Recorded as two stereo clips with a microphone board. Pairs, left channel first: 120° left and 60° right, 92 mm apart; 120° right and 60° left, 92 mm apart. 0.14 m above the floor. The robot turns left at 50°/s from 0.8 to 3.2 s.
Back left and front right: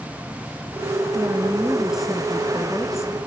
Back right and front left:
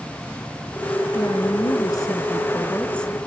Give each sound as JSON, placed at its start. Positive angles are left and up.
{"t": 1.1, "sound": "a woman speaking", "azimuth_deg": -100, "distance_m": 1.7}